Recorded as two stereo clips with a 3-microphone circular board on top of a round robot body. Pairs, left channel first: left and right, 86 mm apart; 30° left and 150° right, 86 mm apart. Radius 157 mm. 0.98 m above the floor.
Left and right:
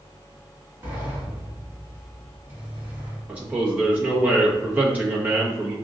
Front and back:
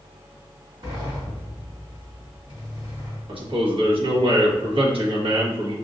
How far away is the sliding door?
About 1.7 m.